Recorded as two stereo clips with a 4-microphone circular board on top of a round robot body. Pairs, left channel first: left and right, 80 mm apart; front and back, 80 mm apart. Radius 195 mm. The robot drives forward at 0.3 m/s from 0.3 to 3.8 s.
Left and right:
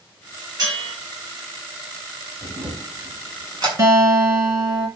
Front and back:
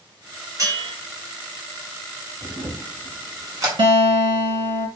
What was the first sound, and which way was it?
A bell, 130° right.